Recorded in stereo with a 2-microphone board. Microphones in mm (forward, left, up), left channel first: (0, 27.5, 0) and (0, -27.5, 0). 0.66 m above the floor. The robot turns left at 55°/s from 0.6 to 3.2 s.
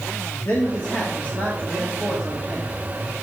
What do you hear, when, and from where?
0.5 s a man speaking: 95° left, 1.3 m; by 2.7 s 25° right, 1.3 m